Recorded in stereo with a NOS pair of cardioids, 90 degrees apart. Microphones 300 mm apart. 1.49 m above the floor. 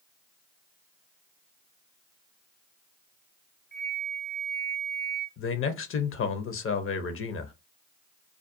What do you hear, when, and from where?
3.7 s a flute: 40° left, 0.8 m
5.4 s a man speaking: 45° left, 0.7 m